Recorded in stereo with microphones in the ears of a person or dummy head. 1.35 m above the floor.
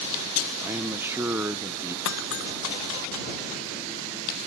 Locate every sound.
0.6 s a man speaking: 5° right (ahead or behind)
2.0 s breaking glass: 70° left (ahead or behind)